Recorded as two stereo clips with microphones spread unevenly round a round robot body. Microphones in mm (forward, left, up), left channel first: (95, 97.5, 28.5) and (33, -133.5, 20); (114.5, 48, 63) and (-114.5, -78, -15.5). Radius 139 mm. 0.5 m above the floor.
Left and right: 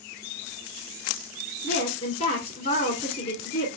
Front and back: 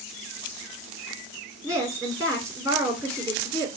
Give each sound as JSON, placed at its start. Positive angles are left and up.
{"t": 1.6, "sound": "a woman speaking", "azimuth_deg": 125, "distance_m": 1.8}